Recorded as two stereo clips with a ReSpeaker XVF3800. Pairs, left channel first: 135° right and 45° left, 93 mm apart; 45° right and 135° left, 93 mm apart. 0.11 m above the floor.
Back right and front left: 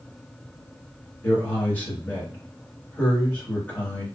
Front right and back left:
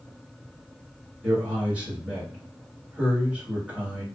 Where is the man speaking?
170° right, 1.6 m.